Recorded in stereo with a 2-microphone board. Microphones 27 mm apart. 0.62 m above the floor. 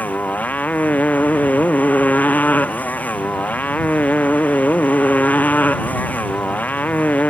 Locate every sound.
0.0 s a motorcycle: 80° left